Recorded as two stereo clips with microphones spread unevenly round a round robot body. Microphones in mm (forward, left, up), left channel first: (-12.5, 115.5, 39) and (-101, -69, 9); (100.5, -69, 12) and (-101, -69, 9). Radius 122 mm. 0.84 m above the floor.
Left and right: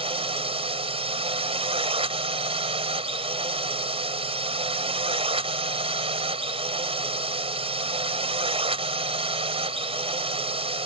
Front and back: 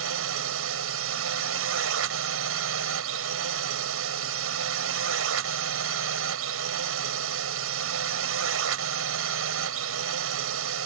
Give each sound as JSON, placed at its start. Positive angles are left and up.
{"t": 0.0, "sound": "a drone", "azimuth_deg": 180}